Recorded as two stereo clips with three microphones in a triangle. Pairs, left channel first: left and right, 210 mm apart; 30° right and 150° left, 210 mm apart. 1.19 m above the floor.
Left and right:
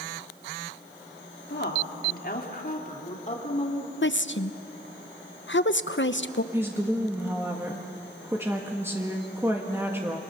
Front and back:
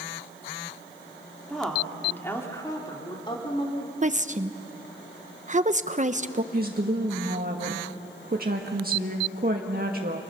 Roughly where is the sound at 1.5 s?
Ahead left.